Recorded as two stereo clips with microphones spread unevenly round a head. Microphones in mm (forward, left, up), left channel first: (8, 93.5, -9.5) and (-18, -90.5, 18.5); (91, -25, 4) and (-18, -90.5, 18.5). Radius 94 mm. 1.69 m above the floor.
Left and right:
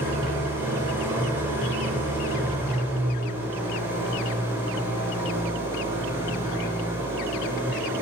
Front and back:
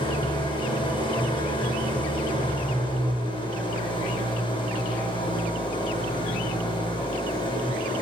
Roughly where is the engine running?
Ahead.